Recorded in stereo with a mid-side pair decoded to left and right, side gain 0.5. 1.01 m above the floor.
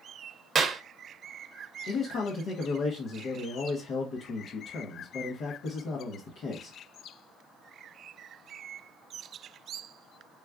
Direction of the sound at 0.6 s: 40° right.